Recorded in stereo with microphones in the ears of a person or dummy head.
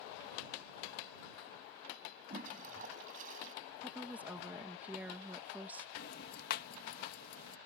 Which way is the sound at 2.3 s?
50° right (ahead or behind).